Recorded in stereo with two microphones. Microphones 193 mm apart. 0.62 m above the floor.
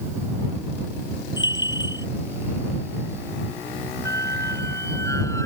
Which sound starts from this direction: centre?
A squeak, at 4.0 s.